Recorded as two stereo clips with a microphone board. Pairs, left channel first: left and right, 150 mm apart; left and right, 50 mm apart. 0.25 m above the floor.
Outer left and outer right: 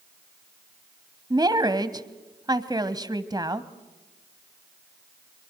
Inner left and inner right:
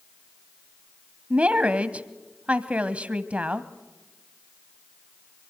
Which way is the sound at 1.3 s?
25° right (ahead or behind).